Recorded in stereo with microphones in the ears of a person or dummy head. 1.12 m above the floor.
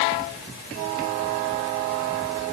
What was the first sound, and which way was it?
Only background noise.